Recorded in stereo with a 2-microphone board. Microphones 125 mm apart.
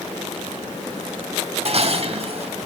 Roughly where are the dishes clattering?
Right.